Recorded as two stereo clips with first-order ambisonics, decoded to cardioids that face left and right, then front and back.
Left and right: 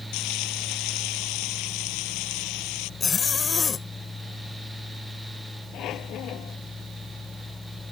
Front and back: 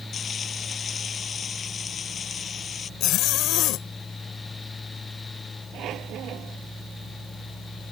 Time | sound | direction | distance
0.1 | frying | 65° left | ?
3.0 | a zipper | 25° left | ?
5.7 | a squeak | 135° left | ?